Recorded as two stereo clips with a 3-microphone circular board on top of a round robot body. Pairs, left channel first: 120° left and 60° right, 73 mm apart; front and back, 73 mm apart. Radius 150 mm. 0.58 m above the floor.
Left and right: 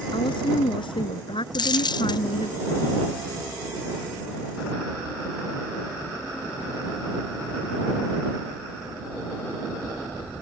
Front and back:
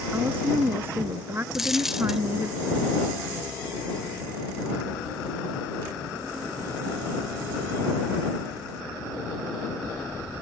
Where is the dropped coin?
90° left.